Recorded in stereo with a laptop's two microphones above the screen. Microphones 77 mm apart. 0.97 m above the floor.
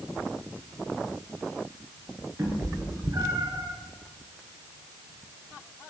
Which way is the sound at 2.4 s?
35° right (ahead or behind).